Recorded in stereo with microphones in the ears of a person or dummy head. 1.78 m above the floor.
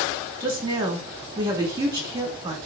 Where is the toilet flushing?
No toilet flushing in this recording.